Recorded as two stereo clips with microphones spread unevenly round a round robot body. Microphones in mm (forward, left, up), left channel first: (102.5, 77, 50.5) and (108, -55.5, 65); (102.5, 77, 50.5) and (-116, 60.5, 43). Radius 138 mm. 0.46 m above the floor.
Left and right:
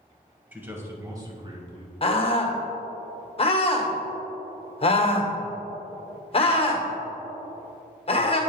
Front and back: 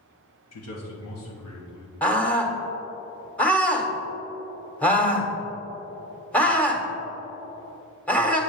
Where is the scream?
90° left, 1.8 m.